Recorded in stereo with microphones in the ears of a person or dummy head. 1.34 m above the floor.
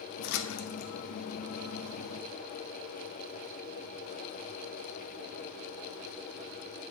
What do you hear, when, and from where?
0.2 s a splash: 65° left (ahead or behind), 0.9 m